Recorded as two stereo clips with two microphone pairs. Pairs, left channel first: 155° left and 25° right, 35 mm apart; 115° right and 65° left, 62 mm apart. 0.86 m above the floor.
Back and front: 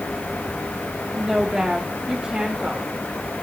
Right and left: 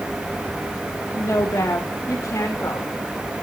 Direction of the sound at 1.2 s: 85° right.